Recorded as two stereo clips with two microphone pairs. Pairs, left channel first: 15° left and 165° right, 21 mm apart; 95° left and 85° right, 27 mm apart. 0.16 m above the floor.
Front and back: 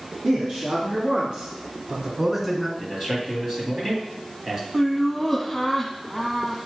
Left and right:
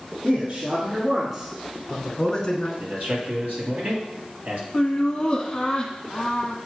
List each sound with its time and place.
0.2 s a man speaking: 135° right, 2.5 m; by 2.7 s 120° left, 1.7 m
2.8 s a man speaking: 100° right, 3 m
4.7 s laughter: 100° left, 1.1 m